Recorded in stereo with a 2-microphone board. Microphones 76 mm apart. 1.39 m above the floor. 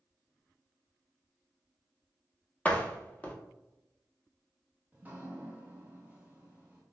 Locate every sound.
2.6 s a door slam: 15° left (ahead or behind), 0.6 m
4.9 s dripping: 25° right (ahead or behind), 0.8 m